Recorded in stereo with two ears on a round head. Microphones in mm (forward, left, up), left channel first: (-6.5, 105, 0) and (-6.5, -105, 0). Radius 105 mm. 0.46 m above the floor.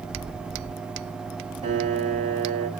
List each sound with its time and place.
1.6 s a piano: 30° right (ahead or behind), 1.6 m